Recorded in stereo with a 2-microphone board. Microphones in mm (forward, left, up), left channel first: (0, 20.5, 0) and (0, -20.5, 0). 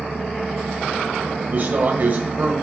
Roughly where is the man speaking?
Right.